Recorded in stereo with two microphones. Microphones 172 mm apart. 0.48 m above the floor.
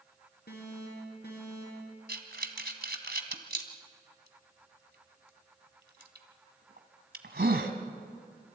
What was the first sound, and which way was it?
An alarm, 80° left.